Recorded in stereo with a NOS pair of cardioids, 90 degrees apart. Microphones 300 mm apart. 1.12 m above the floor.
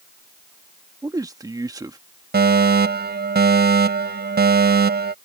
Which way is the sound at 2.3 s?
35° right.